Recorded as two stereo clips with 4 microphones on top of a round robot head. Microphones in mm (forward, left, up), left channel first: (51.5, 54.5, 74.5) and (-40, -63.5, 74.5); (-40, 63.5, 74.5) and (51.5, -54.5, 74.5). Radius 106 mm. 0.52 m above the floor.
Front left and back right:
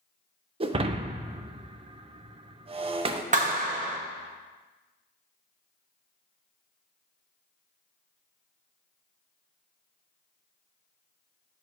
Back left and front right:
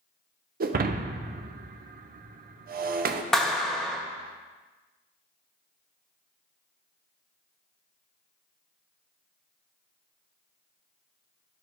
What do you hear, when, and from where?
0.6 s breaking glass: 75° right, 0.5 m
3.3 s a clap: 145° right, 1.1 m